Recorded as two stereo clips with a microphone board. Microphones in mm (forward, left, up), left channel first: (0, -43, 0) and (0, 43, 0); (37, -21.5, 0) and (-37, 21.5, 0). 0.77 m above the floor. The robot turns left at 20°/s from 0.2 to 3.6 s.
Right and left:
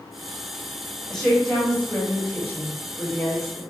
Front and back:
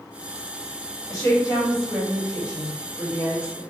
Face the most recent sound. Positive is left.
turn(degrees=-55)